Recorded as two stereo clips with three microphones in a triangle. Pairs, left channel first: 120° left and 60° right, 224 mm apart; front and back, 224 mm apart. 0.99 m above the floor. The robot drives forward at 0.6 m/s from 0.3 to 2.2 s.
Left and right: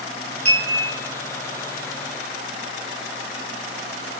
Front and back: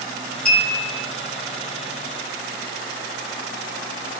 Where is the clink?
50° right, 1.2 m; by 1.1 s 70° right, 1.0 m.